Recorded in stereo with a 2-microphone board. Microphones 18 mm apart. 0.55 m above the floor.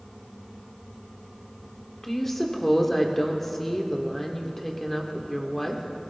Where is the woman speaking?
15° left (ahead or behind), 1.7 m.